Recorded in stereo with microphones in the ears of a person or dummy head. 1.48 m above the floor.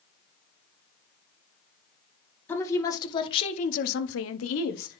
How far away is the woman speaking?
About 2.0 m.